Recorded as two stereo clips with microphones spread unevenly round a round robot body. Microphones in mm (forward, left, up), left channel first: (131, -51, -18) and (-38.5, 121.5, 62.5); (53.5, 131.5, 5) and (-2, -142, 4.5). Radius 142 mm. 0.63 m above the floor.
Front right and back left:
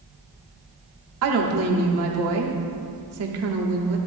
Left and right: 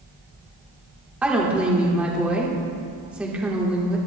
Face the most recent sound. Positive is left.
turn(degrees=175)